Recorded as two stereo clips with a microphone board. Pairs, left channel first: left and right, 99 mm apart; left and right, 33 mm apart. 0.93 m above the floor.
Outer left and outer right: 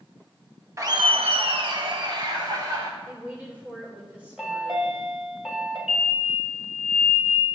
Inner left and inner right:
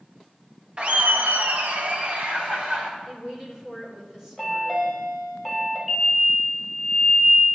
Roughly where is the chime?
Centre.